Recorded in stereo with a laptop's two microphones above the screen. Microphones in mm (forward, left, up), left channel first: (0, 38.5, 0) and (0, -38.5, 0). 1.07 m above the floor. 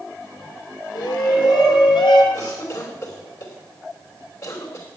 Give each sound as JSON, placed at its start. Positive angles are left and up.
{"t": 0.9, "sound": "a shout", "side_deg": 80, "distance_m": 4.0}
{"t": 2.3, "sound": "a cough", "side_deg": 50, "distance_m": 4.0}